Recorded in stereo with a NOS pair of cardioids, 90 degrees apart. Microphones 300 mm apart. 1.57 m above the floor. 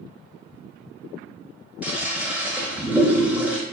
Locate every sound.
1.8 s a toilet flushing: 5° right, 0.7 m